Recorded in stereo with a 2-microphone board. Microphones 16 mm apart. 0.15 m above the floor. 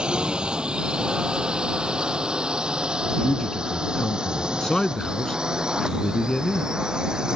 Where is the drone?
70° right (ahead or behind); by 7.4 s 50° right (ahead or behind).